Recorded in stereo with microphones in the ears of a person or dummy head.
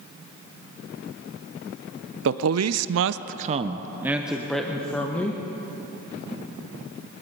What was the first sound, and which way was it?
A man speaking, 60° right (ahead or behind).